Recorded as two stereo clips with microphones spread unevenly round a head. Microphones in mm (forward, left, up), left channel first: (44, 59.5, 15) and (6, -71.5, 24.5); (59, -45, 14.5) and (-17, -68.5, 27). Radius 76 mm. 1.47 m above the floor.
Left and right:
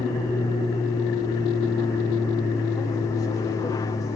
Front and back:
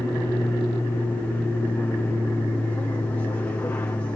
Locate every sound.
0.0 s an aircraft: 50° left